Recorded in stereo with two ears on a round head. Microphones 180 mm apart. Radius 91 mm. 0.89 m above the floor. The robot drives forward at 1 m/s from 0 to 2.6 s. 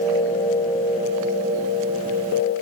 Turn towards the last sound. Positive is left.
No sound to turn to.